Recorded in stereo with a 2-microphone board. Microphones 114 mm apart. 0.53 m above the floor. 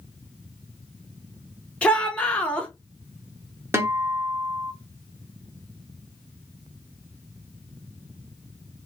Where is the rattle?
No rattle in this recording.